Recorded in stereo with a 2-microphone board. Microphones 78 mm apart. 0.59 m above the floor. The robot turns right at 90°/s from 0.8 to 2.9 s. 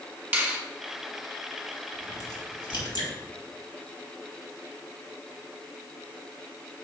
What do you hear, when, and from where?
0.3 s a finger snap: 25° right (ahead or behind), 1.8 m
1.9 s a crack: 20° left (ahead or behind), 3 m; by 3.1 s 70° left (ahead or behind), 3 m